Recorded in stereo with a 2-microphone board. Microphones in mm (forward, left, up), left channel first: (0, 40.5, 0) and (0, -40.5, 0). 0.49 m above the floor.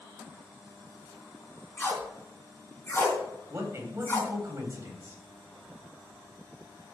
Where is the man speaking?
35° right (ahead or behind), 3.5 m.